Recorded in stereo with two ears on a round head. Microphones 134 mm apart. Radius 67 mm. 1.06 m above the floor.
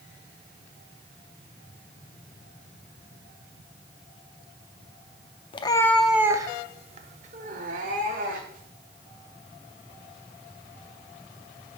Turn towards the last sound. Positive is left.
turn(degrees=-65)  # may be behind; listen again after turning